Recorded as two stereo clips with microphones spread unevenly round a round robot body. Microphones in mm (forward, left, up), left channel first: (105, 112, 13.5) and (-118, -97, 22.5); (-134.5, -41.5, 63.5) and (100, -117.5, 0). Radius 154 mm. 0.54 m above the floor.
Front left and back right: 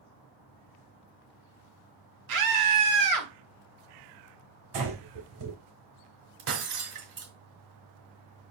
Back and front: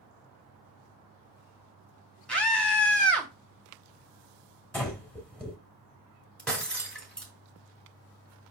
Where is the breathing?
110° right, 4 m.